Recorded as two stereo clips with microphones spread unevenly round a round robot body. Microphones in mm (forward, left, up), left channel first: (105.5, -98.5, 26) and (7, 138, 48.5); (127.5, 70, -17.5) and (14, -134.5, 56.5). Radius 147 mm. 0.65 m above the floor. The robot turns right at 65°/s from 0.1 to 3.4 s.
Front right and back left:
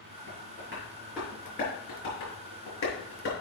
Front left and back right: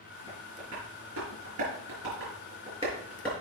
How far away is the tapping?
About 4.5 m.